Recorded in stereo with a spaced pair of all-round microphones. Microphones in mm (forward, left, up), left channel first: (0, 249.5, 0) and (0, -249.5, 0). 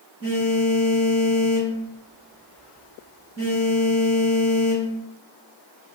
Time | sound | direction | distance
0.2 | a phone buzzing | 25° right (ahead or behind) | 1.5 m